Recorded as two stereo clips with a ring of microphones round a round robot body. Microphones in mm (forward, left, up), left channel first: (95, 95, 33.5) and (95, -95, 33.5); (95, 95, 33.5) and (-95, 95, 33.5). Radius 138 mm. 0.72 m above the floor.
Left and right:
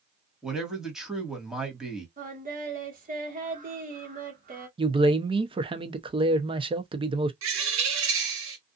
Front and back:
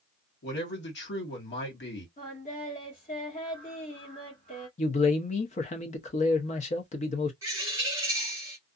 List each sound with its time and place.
0.4 s a man speaking: 5° right, 1.6 m
2.2 s singing: 50° right, 1.3 m
4.8 s a man speaking: 35° right, 0.7 m
7.4 s a bird: 100° right, 1.0 m